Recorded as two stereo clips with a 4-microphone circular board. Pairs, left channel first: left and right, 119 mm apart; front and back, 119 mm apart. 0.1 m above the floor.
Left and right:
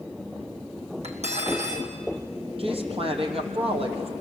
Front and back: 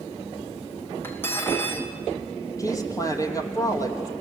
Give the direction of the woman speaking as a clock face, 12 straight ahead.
2 o'clock.